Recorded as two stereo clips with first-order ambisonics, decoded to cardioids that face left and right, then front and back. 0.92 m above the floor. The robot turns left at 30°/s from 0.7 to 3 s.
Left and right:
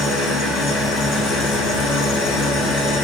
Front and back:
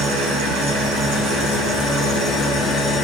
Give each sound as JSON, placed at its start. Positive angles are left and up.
{"t": 0.0, "sound": "an engine running", "azimuth_deg": 150, "distance_m": 8.0}